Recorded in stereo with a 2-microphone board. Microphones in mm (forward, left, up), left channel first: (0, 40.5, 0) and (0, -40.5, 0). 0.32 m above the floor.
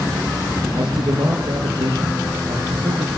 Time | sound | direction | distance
0.8 | a man speaking | 80° right | 6.5 m